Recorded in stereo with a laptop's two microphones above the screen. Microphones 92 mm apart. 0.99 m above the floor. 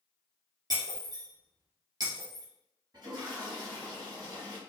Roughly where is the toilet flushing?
Right.